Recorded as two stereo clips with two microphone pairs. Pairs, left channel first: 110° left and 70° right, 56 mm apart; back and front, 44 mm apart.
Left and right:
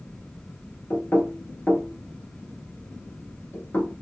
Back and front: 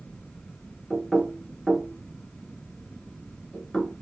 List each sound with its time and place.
0.9 s knocking: 115° left, 1.2 m